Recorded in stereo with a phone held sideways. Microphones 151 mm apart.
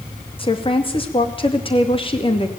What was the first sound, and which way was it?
A woman speaking, 35° left (ahead or behind).